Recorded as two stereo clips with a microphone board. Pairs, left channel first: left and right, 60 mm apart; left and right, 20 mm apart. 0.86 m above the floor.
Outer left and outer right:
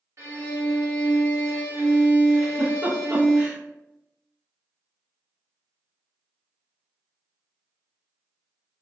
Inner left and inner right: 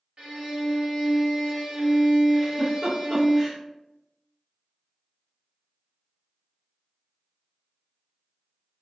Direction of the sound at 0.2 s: 55° right (ahead or behind).